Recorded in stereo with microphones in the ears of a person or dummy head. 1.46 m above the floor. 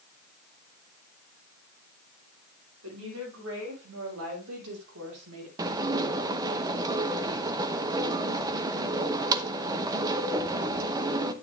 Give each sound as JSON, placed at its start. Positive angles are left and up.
{"t": 2.8, "sound": "a woman speaking", "side_deg": -85, "distance_m": 6.5}
{"t": 5.6, "sound": "dishes clattering", "side_deg": -20, "distance_m": 0.8}